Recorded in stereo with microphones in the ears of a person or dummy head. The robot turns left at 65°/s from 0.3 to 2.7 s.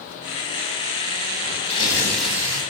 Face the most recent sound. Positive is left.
turn(degrees=-35)